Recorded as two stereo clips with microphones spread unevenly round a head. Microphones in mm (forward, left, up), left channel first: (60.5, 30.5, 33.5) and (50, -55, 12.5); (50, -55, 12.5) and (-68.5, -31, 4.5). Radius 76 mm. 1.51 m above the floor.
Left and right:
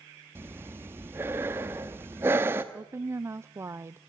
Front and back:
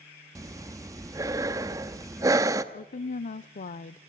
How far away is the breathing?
About 1.0 m.